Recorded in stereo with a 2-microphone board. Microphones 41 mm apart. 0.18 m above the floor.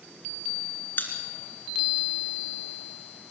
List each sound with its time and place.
1.0 s a pop: 50° left (ahead or behind), 2.5 m